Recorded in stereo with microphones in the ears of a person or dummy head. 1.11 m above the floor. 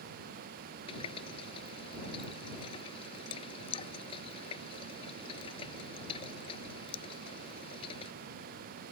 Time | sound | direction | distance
0.9 | a running tap | 30° left (ahead or behind) | ?